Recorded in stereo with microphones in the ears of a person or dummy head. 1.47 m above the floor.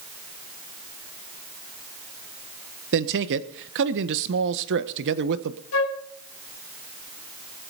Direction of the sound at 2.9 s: 60° right (ahead or behind).